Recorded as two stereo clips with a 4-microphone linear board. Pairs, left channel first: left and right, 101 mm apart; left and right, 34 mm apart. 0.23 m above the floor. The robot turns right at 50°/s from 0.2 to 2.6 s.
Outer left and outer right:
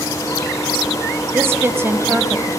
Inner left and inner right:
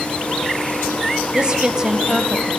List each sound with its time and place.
1.3 s a woman speaking: 25° right (ahead or behind), 1.2 m; by 2.5 s 15° right (ahead or behind), 1.2 m